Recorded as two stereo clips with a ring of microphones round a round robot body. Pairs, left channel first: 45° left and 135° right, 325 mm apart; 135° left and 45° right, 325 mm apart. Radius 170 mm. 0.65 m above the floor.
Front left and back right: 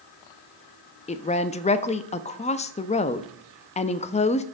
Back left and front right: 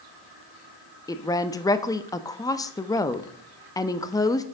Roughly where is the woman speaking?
Left.